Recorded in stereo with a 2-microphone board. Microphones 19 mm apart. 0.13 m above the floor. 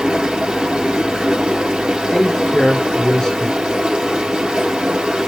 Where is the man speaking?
35° left (ahead or behind), 2.5 m.